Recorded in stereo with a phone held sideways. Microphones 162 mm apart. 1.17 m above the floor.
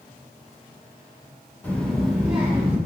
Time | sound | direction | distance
1.6 | a child speaking | 10° left (ahead or behind) | 0.8 m